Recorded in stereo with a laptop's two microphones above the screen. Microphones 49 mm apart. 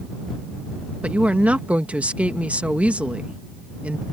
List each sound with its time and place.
1.0 s a woman speaking: 30° right (ahead or behind)